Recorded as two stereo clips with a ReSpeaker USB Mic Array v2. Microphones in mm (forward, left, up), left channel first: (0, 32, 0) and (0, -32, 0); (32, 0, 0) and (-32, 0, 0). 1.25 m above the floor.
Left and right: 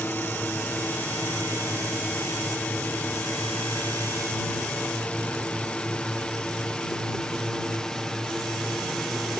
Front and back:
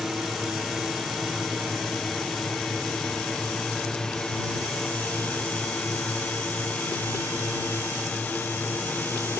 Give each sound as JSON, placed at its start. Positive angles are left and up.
{"t": 0.0, "sound": "a drone", "azimuth_deg": 95}